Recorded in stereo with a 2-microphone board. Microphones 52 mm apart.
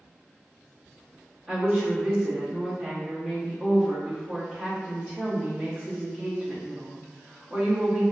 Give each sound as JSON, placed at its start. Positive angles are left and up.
{"t": 1.5, "sound": "a woman speaking", "side_deg": -20, "distance_m": 1.0}